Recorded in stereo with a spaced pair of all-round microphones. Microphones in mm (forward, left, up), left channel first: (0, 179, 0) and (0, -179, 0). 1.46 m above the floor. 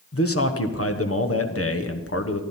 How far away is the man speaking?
About 1.1 m.